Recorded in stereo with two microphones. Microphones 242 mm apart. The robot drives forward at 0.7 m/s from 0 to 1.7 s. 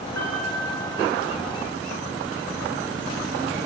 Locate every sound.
0.1 s a piano: 80° left, 7.5 m